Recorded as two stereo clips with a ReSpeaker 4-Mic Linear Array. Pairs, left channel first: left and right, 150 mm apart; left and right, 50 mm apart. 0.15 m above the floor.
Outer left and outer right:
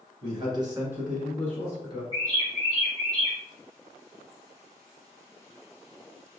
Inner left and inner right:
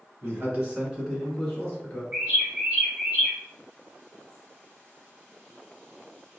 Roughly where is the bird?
Right.